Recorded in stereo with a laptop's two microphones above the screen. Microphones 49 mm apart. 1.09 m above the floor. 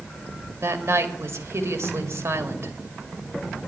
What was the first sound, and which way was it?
A woman speaking, 70° right (ahead or behind).